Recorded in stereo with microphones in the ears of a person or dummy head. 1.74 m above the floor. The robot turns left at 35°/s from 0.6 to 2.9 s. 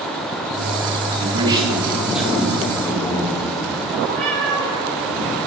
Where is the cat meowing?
45° right (ahead or behind), 2 m.